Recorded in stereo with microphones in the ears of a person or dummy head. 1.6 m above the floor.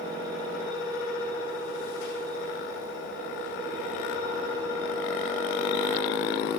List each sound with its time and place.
0.0 s a fan: 65° left (ahead or behind), 9 m